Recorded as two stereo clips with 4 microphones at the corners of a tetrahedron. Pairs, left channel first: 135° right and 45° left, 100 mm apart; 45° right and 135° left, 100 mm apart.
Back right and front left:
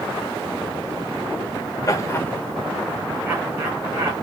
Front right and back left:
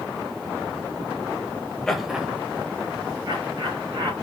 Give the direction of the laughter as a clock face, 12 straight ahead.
4 o'clock.